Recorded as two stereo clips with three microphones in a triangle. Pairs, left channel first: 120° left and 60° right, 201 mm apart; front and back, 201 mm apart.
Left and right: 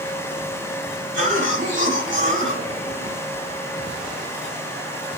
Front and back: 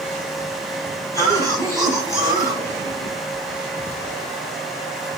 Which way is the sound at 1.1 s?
75° right.